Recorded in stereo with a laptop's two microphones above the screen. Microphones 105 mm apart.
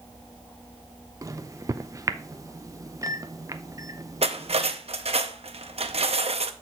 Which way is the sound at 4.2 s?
75° right (ahead or behind).